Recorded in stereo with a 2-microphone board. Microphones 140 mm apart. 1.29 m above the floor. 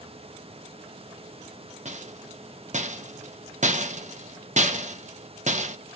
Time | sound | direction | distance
1.9 | a rattle | 60° right (ahead or behind) | 1.1 m